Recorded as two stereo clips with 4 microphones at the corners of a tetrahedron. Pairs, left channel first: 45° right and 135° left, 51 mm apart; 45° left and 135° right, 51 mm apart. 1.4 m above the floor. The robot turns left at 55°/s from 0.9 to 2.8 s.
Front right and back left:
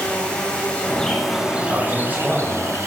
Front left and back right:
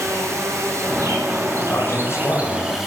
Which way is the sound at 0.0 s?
115° right.